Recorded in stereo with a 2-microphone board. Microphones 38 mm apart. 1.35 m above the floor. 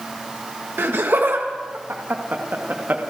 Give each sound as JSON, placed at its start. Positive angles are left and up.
{"t": 0.8, "sound": "laughter", "side_deg": -85, "distance_m": 1.6}